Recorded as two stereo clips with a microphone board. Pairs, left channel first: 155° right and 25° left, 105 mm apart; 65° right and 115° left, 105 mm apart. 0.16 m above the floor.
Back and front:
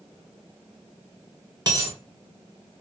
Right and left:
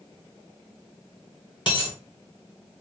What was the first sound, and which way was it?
A dropped coin, 30° right.